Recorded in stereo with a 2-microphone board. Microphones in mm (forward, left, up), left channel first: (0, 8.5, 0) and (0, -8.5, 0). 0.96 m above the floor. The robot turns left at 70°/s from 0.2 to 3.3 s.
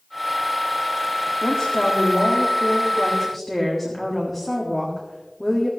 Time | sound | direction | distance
1.4 | a woman speaking | 125° left | 1.7 m